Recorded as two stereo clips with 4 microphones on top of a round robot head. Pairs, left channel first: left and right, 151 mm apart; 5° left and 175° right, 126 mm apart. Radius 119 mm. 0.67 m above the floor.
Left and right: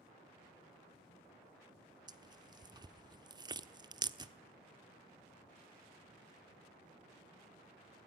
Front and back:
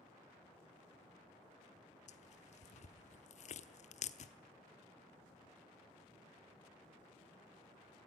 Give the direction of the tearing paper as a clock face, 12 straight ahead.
1 o'clock.